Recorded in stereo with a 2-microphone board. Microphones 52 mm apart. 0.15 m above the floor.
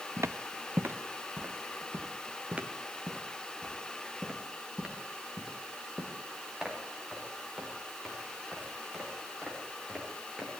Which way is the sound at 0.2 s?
65° right (ahead or behind).